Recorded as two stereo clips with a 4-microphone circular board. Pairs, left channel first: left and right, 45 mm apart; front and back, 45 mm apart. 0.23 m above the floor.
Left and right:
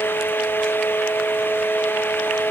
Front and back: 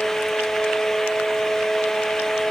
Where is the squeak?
No squeak in this recording.